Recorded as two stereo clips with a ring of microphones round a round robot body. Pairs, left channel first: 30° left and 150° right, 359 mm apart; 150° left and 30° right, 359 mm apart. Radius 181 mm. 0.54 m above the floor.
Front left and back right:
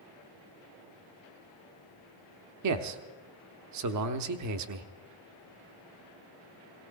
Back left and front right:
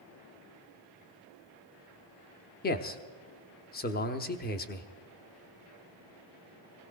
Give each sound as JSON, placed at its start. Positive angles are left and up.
{"t": 2.6, "sound": "a man speaking", "azimuth_deg": -155, "distance_m": 0.9}